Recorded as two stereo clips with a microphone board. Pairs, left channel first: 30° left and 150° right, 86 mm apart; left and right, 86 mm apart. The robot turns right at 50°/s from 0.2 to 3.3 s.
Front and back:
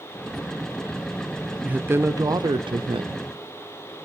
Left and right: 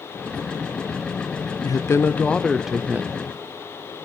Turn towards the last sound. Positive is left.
turn(degrees=-145)